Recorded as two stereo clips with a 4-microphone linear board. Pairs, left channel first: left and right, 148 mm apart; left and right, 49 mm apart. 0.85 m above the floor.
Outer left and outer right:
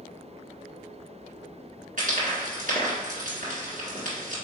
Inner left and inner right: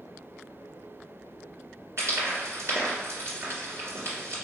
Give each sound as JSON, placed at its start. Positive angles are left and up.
{"t": 2.0, "sound": "frying", "side_deg": -65, "distance_m": 1.6}